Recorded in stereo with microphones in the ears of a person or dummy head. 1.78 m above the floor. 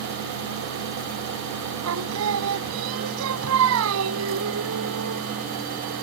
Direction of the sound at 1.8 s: 75° right (ahead or behind).